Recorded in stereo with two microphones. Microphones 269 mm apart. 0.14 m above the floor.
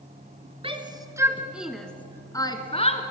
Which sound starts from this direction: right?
A shout, at 0.6 s.